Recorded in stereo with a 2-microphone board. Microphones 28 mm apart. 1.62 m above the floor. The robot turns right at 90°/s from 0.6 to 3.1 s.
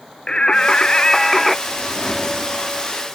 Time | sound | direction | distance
0.3 | singing | 90° left | ?
1.7 | a whoosh | 120° left | ?